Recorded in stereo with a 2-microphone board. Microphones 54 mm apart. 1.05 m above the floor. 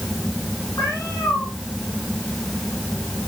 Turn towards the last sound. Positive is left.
turn(degrees=80)